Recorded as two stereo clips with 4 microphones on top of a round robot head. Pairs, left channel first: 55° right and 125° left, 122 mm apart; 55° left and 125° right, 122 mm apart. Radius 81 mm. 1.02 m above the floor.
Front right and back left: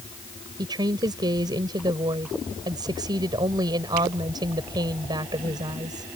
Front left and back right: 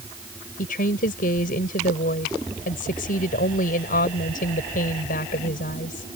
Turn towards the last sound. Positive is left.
turn(degrees=65)